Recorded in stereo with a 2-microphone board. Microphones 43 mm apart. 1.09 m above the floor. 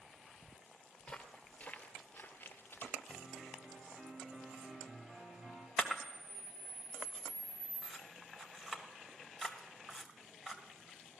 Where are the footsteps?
15° left (ahead or behind), 1.4 m; by 3.0 s 50° left (ahead or behind), 1.8 m.